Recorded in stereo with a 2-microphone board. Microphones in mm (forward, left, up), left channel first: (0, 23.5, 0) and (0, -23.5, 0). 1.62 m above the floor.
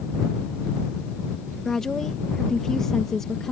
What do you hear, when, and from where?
1.6 s a woman speaking: 10° left (ahead or behind)